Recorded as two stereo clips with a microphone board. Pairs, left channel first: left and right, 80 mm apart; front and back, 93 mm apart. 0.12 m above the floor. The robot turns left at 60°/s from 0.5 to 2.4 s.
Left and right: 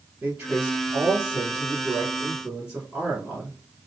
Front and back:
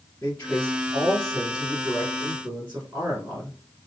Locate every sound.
0.2 s a man speaking: 45° right, 1.1 m; by 3.6 s 155° right, 1.1 m